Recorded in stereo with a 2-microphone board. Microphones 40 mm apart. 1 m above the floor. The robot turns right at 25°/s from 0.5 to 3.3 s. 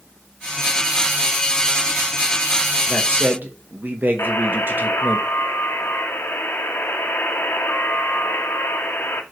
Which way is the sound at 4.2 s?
80° left.